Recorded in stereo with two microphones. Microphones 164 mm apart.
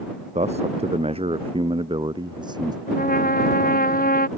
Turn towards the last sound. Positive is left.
turn(degrees=60)  # may be behind; listen again after turning